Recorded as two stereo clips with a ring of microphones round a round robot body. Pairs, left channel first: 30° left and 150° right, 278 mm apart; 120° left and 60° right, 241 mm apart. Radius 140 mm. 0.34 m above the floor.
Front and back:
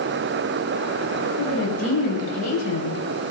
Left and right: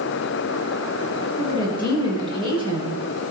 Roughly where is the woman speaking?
Ahead.